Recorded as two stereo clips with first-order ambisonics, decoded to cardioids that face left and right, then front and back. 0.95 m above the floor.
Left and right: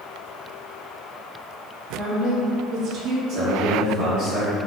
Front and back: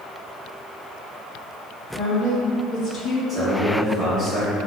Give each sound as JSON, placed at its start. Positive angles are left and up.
{"t": 1.9, "sound": "a woman speaking", "azimuth_deg": -55, "distance_m": 1.4}
{"t": 3.3, "sound": "a man speaking", "azimuth_deg": -85, "distance_m": 1.3}